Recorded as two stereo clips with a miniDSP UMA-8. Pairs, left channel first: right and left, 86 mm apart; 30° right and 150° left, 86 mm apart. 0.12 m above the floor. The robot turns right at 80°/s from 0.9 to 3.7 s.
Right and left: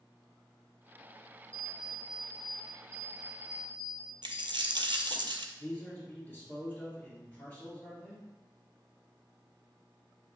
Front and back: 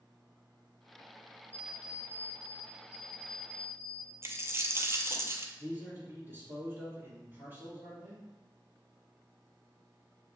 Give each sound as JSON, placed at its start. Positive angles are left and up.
{"t": 1.5, "sound": "an alarm clock", "azimuth_deg": 30, "distance_m": 1.9}
{"t": 4.2, "sound": "a dropped coin", "azimuth_deg": 95, "distance_m": 0.5}
{"t": 5.6, "sound": "a man speaking", "azimuth_deg": -155, "distance_m": 2.5}